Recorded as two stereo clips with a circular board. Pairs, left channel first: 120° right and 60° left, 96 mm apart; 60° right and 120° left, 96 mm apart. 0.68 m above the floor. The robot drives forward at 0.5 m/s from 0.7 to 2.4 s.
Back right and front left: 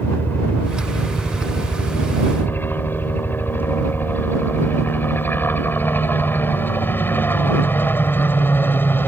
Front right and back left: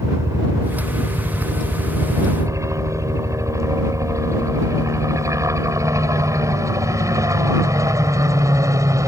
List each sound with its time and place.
0.0 s a helicopter: 175° left